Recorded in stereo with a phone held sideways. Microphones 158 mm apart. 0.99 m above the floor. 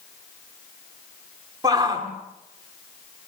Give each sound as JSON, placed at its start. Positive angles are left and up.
{"t": 1.6, "sound": "a shout", "side_deg": -25, "distance_m": 2.5}